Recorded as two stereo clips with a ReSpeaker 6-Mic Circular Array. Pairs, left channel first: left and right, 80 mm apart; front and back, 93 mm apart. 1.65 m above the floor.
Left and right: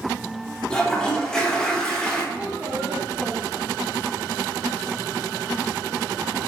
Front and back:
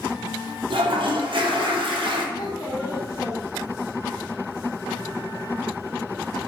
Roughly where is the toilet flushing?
Behind.